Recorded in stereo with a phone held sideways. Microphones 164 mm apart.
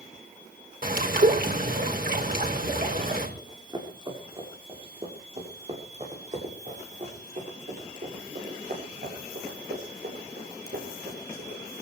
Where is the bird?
60° right (ahead or behind), 5.5 m.